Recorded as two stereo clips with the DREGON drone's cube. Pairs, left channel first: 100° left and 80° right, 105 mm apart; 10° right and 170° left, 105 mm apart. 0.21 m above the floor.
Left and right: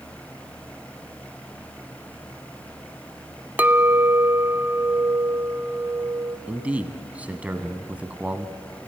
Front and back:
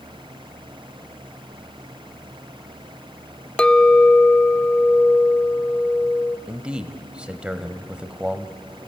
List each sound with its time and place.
3.6 s a clink: 70° right, 0.6 m
6.5 s a man speaking: 125° right, 1.1 m